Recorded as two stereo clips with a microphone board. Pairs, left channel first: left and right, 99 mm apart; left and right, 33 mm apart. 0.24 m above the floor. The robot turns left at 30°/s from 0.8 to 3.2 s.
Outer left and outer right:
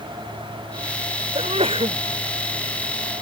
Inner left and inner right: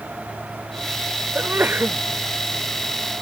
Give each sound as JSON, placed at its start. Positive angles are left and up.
{"t": 1.4, "sound": "a sneeze", "side_deg": -85}